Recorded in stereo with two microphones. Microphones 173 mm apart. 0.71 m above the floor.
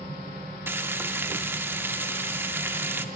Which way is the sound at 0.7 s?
15° right (ahead or behind).